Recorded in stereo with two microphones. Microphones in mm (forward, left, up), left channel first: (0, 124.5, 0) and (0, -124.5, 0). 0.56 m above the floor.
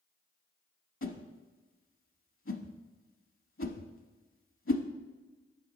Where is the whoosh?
55° left (ahead or behind), 0.7 m.